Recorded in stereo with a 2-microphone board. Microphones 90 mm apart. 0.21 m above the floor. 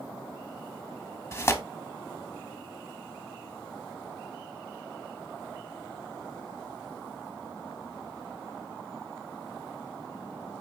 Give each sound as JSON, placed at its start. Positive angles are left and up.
{"t": 1.3, "sound": "tearing paper", "side_deg": 30, "distance_m": 0.5}